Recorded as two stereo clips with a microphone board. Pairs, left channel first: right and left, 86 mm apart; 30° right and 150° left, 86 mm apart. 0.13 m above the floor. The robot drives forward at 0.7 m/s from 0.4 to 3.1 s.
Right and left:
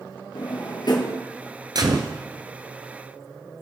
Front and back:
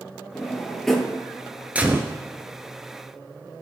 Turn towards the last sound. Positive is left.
turn(degrees=130)